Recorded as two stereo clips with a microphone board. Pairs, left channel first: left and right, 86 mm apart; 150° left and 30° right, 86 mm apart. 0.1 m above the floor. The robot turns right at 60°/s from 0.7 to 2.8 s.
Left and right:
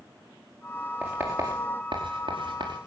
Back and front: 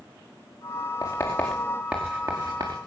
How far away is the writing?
About 4.5 m.